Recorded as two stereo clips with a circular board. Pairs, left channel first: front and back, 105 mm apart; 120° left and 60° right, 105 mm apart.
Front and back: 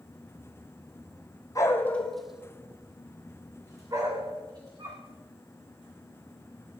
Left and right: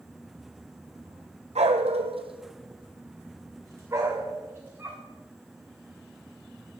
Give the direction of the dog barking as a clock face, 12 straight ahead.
2 o'clock.